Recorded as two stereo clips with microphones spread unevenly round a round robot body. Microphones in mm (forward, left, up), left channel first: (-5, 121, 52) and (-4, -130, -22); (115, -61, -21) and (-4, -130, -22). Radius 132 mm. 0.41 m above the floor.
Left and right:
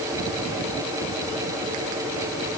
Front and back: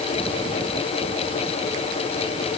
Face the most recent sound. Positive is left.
No sound to turn to.